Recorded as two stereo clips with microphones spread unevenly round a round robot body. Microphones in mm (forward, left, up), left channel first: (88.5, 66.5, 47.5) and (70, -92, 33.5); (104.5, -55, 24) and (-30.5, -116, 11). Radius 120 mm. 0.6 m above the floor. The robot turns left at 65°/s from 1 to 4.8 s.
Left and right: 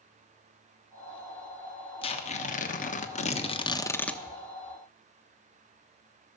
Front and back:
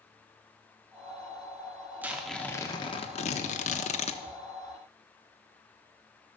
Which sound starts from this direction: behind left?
Tearing paper, at 2.0 s.